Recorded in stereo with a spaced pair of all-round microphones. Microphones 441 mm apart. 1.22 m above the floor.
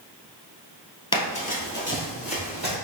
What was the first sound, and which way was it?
Running footsteps, 10° left (ahead or behind).